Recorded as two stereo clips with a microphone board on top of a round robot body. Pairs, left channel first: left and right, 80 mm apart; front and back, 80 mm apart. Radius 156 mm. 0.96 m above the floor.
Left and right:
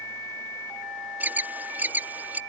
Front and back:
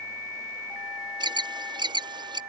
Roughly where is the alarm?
Behind.